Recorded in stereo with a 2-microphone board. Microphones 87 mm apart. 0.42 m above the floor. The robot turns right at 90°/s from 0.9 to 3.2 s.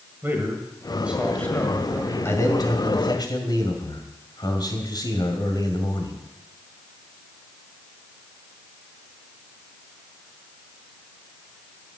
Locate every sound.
0.2 s a man speaking: 30° right, 2 m; by 2.1 s 80° left, 2 m
2.2 s a man speaking: 30° left, 2 m; by 6.2 s 115° left, 2 m